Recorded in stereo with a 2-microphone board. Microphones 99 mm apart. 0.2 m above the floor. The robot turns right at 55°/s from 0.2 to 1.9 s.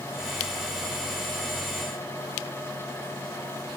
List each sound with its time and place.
Only background noise.